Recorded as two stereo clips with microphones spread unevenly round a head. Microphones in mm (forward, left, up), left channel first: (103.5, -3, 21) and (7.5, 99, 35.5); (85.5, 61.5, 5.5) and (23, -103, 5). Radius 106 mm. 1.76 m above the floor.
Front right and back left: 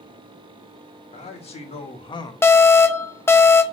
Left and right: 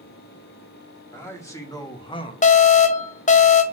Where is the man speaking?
5° right, 2 m; by 2.3 s 15° left, 0.9 m.